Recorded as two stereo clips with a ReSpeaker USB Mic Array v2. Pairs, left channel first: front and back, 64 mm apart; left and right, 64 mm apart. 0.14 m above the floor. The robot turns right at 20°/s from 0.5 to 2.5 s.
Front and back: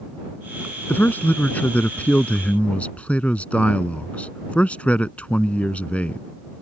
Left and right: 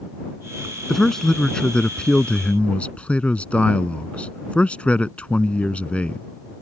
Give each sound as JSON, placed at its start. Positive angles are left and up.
{"t": 0.9, "sound": "a man speaking", "azimuth_deg": 10}